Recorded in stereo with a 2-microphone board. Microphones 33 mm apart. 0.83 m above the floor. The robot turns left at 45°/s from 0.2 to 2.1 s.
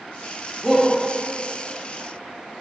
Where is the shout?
Centre (ahead or behind), 0.8 m; by 0.9 s 10° left (ahead or behind), 0.8 m.